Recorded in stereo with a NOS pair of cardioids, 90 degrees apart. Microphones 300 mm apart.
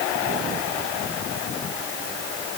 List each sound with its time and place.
Only background noise.